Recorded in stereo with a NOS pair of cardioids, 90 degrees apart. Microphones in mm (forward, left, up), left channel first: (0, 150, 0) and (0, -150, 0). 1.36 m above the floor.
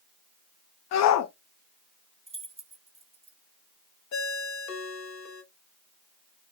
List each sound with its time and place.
0.9 s a shout: 65° left, 0.5 m
2.3 s keys jangling: 20° right, 1.0 m
4.1 s a ringtone: 65° left, 1.2 m